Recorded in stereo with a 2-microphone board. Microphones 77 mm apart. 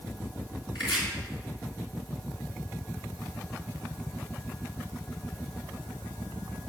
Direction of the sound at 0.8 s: 80° left.